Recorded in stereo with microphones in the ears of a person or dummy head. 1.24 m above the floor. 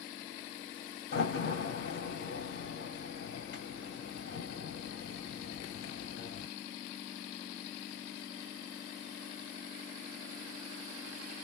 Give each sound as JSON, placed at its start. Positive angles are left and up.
{"t": 1.1, "sound": "a door slam", "side_deg": 55, "distance_m": 3.0}